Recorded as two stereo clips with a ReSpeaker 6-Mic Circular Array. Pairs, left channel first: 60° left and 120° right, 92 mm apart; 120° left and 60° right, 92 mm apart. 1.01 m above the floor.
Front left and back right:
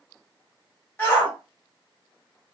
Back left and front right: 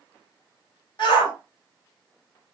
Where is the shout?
125° left, 1.9 m.